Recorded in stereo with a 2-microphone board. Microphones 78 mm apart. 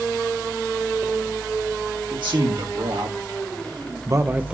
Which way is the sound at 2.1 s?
75° right (ahead or behind).